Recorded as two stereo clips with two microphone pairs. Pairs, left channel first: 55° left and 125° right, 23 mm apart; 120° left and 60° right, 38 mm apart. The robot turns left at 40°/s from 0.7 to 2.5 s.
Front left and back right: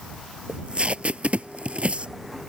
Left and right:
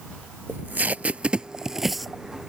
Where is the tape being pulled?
90° right; by 2.1 s 150° right.